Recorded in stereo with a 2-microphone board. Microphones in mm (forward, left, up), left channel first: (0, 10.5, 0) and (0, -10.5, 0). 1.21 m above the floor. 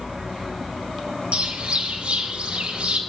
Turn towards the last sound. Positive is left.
turn(degrees=-65)  # may be behind; listen again after turning